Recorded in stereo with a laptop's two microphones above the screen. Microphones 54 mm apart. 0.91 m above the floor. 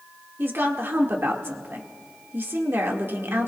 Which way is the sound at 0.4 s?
50° right (ahead or behind).